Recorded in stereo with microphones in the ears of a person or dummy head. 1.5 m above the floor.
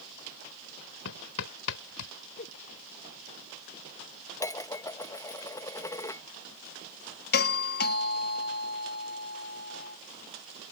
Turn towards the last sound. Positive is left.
turn(degrees=50)  # may be behind; listen again after turning